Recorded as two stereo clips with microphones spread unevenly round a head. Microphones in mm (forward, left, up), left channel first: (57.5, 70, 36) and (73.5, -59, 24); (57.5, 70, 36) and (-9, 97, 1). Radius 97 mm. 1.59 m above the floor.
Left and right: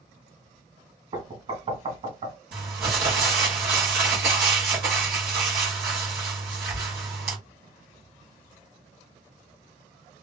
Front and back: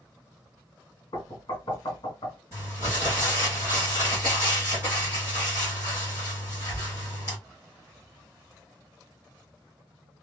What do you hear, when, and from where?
1.1 s knocking: 45° right, 1.5 m
2.5 s crumpling: 115° right, 1.1 m